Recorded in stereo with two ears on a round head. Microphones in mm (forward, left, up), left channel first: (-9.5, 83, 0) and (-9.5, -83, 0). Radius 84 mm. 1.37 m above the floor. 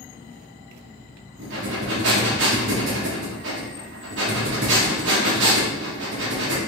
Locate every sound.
1.4 s breathing: 65° right (ahead or behind), 1.2 m